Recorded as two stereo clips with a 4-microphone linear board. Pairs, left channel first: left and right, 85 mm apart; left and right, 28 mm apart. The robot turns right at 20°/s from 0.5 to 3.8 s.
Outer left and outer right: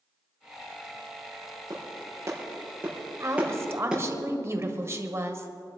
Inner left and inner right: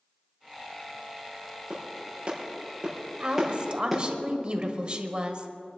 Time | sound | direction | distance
1.7 | a clap | 50° right (ahead or behind) | 5.5 m
3.2 | a woman speaking | 35° right (ahead or behind) | 1.5 m